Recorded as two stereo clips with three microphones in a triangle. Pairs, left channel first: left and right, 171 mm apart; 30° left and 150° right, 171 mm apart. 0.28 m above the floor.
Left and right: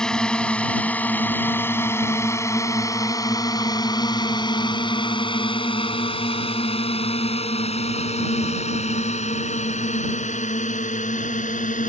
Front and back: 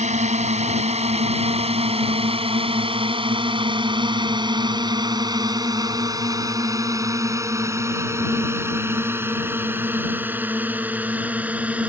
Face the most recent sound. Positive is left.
turn(degrees=130)